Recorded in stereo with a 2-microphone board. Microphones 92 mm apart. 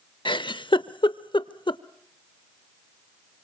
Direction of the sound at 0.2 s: 65° left (ahead or behind).